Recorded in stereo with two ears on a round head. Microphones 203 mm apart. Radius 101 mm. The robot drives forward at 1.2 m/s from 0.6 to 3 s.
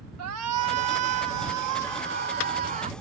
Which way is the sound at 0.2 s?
75° right (ahead or behind).